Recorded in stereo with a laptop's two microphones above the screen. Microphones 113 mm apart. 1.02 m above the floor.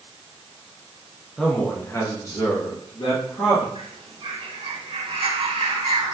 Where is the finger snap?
I don't hear a finger snap.